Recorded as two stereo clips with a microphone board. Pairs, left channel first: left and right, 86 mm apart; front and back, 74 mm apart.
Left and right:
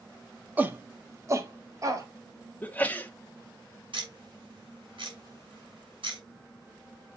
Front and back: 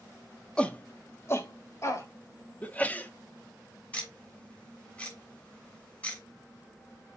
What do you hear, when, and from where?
0.6 s a shout: 60° right, 1.1 m; by 2.1 s 45° right, 2.5 m
2.6 s a sneeze: 45° left, 1.0 m
3.9 s ticking: 75° right, 6 m